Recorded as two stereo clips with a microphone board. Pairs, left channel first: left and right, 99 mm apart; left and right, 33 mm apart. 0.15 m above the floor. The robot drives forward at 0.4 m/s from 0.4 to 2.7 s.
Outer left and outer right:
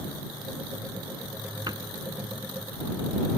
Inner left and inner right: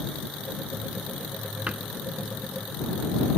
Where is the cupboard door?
45° right (ahead or behind).